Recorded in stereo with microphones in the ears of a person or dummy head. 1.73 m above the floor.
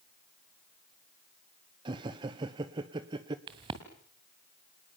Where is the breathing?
No breathing in this recording.